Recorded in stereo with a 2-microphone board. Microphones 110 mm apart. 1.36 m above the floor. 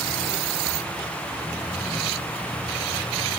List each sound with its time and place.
Only background noise.